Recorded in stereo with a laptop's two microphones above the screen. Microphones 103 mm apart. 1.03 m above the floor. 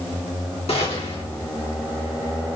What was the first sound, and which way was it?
A gunshot, 85° left.